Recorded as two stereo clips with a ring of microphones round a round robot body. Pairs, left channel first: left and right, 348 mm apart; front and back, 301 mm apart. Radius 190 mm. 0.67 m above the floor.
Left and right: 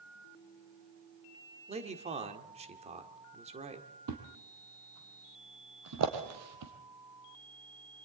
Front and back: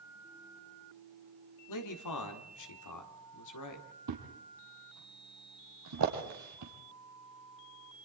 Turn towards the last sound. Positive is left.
turn(degrees=-135)